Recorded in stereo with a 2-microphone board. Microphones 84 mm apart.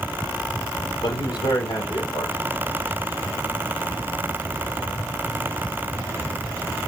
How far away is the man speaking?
About 4.5 m.